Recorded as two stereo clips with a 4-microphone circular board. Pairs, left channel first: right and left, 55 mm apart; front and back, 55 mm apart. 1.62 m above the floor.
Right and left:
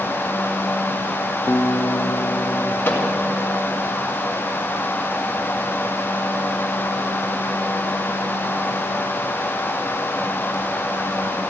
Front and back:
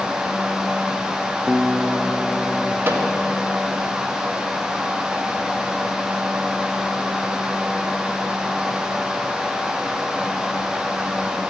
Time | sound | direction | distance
1.5 | a guitar | 100° right | 0.8 m
2.9 | a microwave | 140° right | 2 m